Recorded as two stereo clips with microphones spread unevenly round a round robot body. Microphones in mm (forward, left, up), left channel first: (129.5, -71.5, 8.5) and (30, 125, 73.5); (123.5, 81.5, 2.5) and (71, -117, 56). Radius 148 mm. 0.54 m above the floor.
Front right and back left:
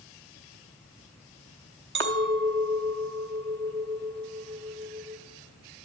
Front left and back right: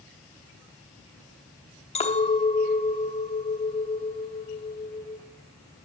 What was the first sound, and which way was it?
A clink, 90° left.